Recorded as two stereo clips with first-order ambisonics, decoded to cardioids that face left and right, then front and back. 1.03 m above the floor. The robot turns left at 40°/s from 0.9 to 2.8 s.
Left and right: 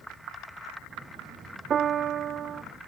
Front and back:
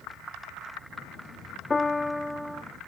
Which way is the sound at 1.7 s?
60° right.